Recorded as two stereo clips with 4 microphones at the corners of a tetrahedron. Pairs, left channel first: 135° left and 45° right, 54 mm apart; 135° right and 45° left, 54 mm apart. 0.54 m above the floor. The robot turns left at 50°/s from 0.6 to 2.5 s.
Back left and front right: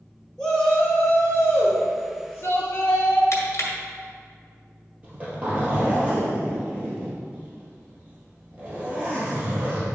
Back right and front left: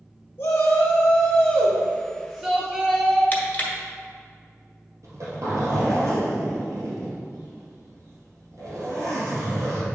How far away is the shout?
About 1.3 m.